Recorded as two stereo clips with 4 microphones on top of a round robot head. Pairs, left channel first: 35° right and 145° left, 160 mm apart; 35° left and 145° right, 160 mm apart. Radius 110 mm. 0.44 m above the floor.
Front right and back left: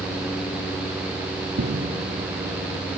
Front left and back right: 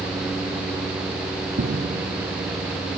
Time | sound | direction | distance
1.6 | footsteps | 175° left | 1.4 m